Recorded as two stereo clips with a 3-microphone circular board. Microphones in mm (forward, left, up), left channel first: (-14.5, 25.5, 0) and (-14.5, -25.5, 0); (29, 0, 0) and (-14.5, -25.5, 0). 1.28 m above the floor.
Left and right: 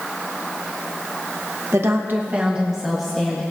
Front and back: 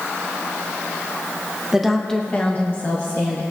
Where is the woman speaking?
70° right, 1.3 m; by 3.4 s 5° left, 2.0 m.